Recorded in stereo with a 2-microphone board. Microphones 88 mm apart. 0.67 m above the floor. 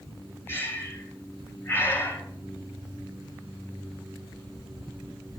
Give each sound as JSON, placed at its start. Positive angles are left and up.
{"t": 0.5, "sound": "breathing", "side_deg": 25, "distance_m": 3.0}